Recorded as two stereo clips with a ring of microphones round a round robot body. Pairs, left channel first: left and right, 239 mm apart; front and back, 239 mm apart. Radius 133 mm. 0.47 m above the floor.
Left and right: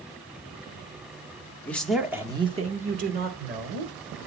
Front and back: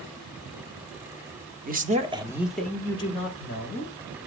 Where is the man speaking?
170° left, 0.9 m; by 3.9 s 50° right, 1.4 m.